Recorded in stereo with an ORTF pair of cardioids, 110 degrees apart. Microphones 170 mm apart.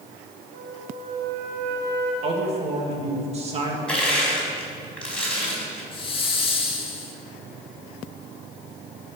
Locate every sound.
0.5 s a flute: 55° right, 3.5 m
2.2 s a man speaking: 35° right, 2 m
3.9 s crushing: 5° left, 4 m
5.9 s a hiss: 30° left, 1.6 m